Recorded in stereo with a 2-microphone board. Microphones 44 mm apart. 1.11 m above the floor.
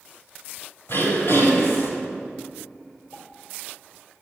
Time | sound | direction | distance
0.9 | throat clearing | 70° left (ahead or behind) | 4 m
3.1 | a pop | 75° left (ahead or behind) | 4 m